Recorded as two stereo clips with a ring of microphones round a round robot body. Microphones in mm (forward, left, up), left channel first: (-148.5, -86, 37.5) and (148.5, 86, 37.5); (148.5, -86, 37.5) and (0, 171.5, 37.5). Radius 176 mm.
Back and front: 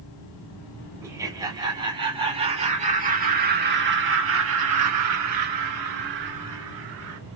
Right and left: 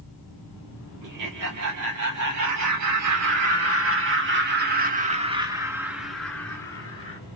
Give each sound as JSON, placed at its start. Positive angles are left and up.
{"t": 1.0, "sound": "laughter", "azimuth_deg": 110, "distance_m": 3.0}